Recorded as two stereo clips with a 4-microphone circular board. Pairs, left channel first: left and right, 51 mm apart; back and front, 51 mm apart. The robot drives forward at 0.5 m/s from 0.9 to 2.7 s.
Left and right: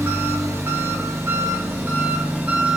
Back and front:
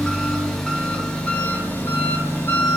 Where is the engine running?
100° right, 0.8 m; by 2.8 s 145° right, 1.3 m.